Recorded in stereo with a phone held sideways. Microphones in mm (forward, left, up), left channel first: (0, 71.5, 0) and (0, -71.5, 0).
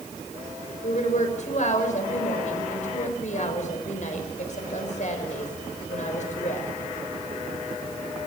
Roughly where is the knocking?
No knocking in this recording.